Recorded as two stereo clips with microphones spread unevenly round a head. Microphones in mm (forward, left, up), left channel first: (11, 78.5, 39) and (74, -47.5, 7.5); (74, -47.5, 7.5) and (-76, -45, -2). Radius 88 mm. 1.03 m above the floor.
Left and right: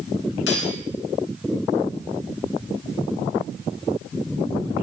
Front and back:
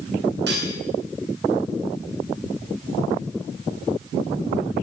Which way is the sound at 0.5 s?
140° left.